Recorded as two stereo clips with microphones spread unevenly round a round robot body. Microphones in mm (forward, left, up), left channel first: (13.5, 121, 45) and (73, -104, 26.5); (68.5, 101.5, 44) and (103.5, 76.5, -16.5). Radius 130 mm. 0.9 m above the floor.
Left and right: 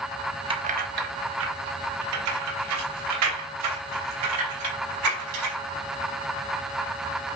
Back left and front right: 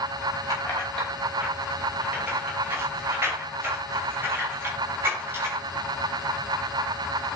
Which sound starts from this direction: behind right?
Keys jangling, at 0.5 s.